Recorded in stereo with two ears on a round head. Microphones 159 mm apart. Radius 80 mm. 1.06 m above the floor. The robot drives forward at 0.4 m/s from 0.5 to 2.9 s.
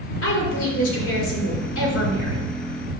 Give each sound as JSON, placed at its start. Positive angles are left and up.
{"t": 0.2, "sound": "a woman speaking", "side_deg": 85, "distance_m": 4.0}